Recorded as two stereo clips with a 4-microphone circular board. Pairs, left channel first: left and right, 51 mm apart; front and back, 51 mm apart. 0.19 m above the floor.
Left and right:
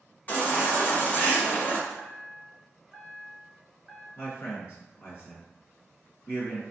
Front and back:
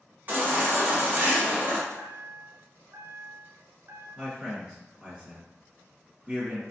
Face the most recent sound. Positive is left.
turn(degrees=105)